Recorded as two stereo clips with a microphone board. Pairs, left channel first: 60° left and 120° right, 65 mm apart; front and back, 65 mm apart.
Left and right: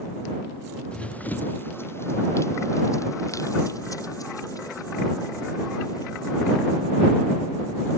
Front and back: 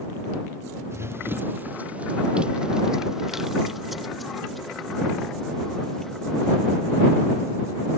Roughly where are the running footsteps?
Behind left.